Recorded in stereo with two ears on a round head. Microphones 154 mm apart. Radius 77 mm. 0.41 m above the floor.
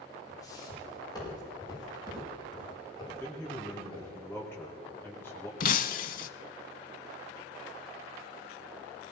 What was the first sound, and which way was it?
Footsteps, 20° left (ahead or behind).